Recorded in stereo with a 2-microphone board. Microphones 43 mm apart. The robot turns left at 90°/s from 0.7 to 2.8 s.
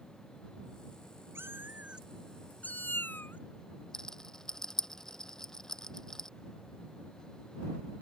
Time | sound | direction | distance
1.4 | a cat meowing | 100° right | ?
3.9 | a rattle | 10° left (ahead or behind) | ?